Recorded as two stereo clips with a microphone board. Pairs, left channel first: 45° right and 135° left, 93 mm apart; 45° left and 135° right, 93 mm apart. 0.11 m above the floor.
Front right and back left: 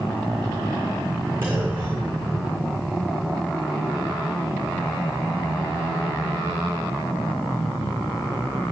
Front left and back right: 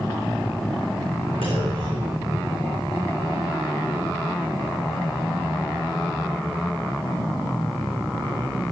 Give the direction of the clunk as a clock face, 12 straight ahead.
5 o'clock.